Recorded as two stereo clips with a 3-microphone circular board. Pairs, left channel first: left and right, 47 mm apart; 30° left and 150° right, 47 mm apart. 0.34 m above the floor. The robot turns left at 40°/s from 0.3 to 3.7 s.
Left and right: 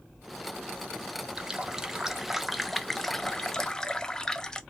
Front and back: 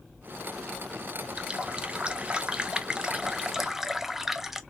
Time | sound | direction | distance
1.4 | a running tap | 130° right | 0.5 m